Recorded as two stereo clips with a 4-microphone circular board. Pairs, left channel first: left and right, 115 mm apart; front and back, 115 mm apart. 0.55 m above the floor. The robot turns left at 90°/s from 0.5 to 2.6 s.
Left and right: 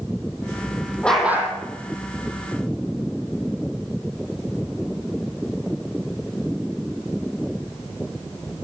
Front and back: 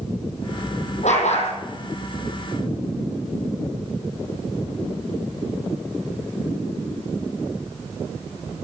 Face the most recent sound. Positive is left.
turn(degrees=-130)